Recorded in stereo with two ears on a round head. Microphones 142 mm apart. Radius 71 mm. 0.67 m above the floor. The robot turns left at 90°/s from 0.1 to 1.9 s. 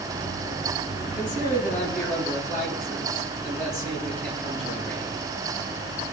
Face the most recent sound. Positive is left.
turn(degrees=0)